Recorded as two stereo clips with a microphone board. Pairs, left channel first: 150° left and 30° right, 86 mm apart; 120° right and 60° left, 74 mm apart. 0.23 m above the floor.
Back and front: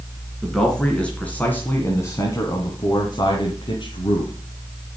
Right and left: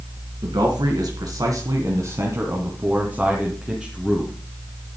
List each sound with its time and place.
0.4 s a man speaking: 65° left, 2.5 m; by 4.3 s 150° left, 2.5 m